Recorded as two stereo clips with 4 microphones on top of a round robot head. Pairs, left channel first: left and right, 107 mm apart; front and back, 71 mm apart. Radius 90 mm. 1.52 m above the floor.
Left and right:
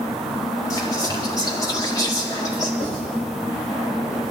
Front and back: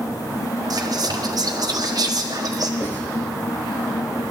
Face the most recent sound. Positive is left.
turn(degrees=65)